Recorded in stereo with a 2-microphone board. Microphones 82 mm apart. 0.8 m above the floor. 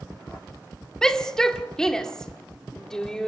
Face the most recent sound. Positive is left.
turn(degrees=10)  # may be behind; listen again after turning